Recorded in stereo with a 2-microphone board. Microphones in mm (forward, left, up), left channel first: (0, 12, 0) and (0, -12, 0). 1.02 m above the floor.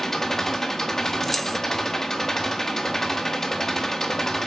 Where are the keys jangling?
15° left (ahead or behind), 0.9 m.